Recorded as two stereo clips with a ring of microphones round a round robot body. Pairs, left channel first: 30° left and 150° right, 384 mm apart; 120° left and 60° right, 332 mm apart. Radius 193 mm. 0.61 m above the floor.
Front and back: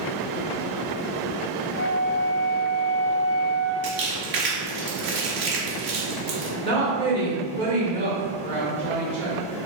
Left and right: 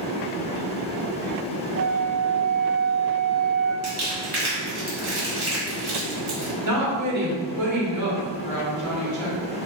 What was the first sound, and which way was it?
A flute, 15° right.